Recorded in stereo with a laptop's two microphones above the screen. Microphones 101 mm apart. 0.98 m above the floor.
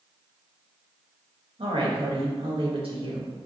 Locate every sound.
1.6 s a woman speaking: 70° right (ahead or behind), 1.3 m